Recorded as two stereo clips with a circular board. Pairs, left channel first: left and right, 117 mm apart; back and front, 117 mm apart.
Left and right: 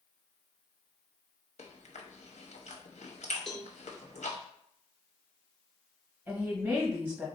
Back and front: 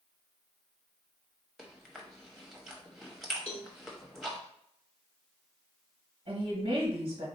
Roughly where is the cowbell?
Behind.